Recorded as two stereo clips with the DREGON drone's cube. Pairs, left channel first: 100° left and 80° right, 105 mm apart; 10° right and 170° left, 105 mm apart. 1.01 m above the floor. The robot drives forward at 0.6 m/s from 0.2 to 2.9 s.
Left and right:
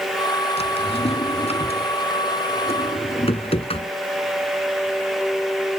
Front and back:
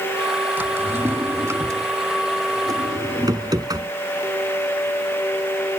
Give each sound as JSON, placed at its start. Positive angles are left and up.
{"t": 0.6, "sound": "a drawer", "azimuth_deg": 100}